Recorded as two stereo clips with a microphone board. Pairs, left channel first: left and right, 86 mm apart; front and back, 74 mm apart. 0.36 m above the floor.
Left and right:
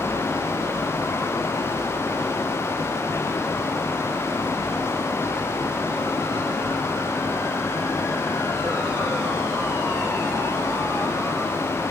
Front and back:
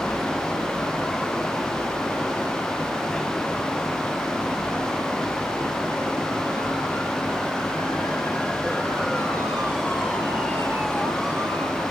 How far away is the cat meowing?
I don't hear a cat meowing.